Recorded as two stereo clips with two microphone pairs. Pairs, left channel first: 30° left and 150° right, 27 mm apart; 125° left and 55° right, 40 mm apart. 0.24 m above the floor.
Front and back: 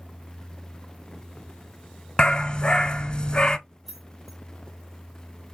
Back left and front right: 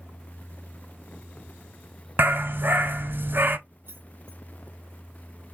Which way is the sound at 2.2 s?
25° right.